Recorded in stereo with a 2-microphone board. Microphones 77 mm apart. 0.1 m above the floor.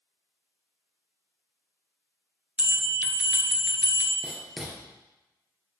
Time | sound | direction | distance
2.6 | a bell | 15° right (ahead or behind) | 1.5 m
4.2 | writing | 5° right (ahead or behind) | 1.7 m